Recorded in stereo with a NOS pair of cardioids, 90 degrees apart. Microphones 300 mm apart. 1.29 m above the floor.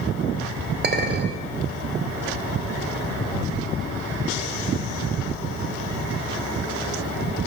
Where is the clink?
35° right, 3 m.